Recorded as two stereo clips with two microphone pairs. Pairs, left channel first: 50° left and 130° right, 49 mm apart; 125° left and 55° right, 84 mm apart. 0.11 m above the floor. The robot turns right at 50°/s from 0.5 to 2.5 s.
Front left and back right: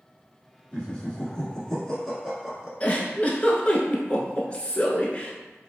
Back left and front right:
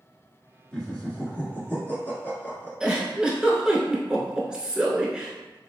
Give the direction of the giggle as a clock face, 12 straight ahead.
12 o'clock.